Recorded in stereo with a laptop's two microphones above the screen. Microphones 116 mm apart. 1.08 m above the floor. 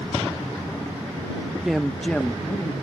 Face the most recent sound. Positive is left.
turn(degrees=20)  # may be behind; listen again after turning